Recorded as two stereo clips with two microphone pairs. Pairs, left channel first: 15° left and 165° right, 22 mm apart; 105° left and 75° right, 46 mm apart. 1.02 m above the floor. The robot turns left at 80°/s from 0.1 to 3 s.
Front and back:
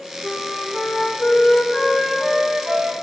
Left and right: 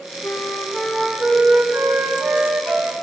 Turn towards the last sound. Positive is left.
turn(degrees=-135)